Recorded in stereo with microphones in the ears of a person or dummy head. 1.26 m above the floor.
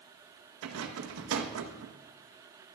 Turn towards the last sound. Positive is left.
turn(degrees=-75)  # may be behind; listen again after turning